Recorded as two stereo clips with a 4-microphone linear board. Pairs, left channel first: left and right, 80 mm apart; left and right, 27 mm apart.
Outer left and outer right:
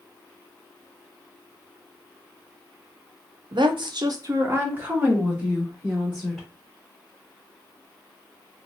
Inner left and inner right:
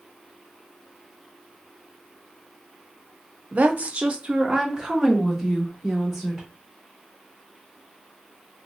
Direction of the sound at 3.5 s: 65° right (ahead or behind).